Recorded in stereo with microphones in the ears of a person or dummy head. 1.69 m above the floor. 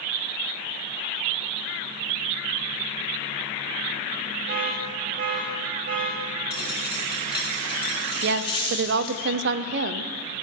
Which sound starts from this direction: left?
A dropped coin, at 6.5 s.